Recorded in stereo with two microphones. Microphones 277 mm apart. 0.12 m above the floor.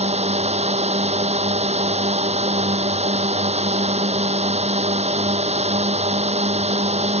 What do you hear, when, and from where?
0.0 s a drone: 25° right (ahead or behind)